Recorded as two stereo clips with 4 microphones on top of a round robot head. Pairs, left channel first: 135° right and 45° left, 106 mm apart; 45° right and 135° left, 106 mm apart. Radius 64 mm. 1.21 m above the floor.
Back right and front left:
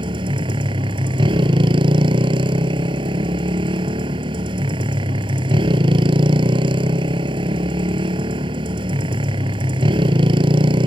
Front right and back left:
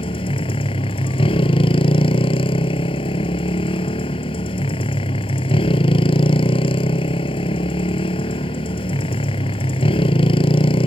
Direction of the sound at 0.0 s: Straight ahead.